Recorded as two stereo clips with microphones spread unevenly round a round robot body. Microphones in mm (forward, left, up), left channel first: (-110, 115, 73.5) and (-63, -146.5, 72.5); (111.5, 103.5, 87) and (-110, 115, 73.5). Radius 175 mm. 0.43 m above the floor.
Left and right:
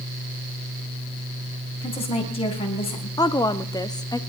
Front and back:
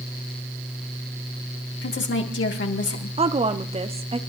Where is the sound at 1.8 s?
30° left, 3.5 m.